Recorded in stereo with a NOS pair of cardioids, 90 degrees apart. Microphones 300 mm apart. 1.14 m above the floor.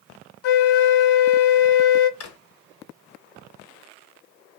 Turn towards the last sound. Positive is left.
turn(degrees=55)